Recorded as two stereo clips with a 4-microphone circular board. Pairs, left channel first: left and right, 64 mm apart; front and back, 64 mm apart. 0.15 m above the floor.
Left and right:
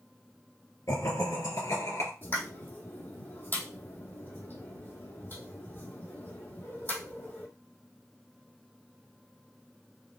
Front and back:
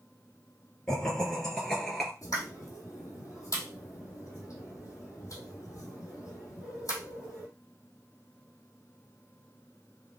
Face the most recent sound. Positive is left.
turn(degrees=35)